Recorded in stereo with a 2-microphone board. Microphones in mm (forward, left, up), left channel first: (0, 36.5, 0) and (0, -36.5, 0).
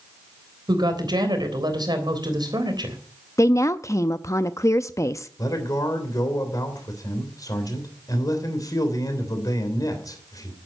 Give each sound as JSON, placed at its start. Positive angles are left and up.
{"t": 0.7, "sound": "a woman speaking", "side_deg": -75, "distance_m": 3.5}
{"t": 3.4, "sound": "a woman speaking", "side_deg": 45, "distance_m": 0.5}
{"t": 5.4, "sound": "a man speaking", "side_deg": 55, "distance_m": 3.0}